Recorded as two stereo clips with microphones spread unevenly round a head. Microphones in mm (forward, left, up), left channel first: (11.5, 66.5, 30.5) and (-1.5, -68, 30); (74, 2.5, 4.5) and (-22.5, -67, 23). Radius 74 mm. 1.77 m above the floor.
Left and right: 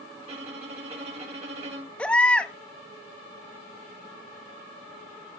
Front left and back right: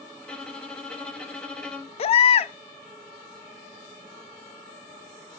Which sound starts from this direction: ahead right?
A violin, at 0.2 s.